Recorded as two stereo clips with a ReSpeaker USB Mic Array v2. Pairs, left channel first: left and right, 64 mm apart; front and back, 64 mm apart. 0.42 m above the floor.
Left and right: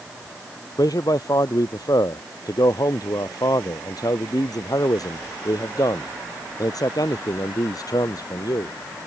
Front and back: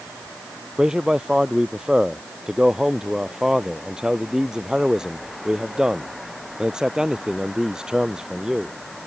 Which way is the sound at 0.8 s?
100° left.